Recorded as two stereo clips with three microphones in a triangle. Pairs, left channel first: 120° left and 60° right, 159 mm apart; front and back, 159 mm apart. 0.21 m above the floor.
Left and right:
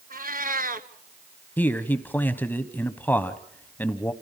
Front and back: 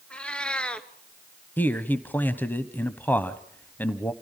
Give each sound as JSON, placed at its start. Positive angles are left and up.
{"t": 0.1, "sound": "a cat meowing", "azimuth_deg": -80, "distance_m": 1.0}
{"t": 1.6, "sound": "a man speaking", "azimuth_deg": 60, "distance_m": 1.0}